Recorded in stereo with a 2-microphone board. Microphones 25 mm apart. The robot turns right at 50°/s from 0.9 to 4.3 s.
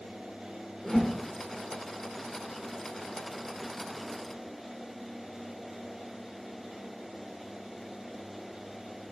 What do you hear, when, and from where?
0.8 s a whoosh: 10° left (ahead or behind), 1.1 m; by 1.2 s 5° right (ahead or behind), 1.1 m